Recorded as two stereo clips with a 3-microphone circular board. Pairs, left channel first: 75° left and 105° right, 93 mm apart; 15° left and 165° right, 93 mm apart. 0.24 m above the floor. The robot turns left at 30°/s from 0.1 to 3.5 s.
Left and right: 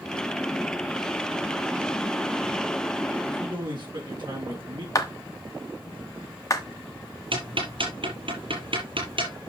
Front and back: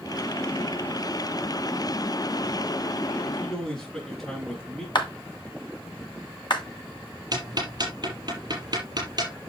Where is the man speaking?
65° right, 4 m; by 4.8 s 70° right, 4 m.